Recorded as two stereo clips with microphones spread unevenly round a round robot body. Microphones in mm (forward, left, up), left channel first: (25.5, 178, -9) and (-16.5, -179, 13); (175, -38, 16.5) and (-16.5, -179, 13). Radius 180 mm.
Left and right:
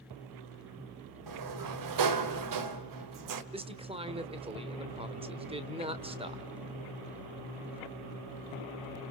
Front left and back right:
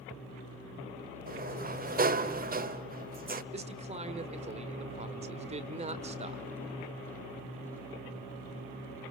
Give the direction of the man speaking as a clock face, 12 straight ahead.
5 o'clock.